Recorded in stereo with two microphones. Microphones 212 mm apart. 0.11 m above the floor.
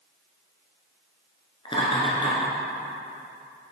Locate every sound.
1.6 s laughter: 25° left (ahead or behind), 1.2 m